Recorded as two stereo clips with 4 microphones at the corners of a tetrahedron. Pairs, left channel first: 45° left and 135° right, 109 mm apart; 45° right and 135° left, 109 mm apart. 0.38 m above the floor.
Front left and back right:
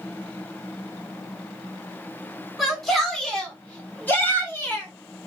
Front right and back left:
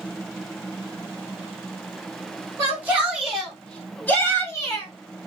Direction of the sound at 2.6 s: 145° left.